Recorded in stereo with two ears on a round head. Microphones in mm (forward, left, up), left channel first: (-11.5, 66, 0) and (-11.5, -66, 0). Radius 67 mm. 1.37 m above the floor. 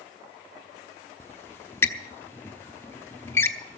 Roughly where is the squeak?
Centre.